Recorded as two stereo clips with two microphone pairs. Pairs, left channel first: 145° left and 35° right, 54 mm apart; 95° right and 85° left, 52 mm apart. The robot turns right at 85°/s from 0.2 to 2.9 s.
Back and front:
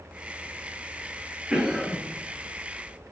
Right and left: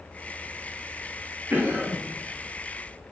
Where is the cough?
35° left, 2 m; by 2.0 s 80° left, 2 m.